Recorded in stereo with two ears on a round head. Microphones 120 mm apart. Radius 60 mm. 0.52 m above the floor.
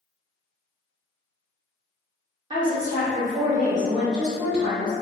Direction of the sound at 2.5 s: 30° right (ahead or behind).